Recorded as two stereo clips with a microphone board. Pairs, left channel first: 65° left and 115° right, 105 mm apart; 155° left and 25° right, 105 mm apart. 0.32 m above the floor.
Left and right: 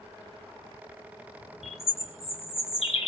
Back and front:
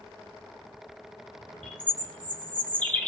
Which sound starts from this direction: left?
A bird, at 1.6 s.